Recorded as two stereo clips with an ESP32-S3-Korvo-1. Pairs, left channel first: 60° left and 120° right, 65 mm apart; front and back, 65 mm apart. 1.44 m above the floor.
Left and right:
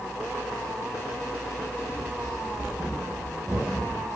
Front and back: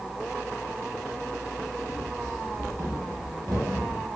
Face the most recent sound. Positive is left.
turn(degrees=-165)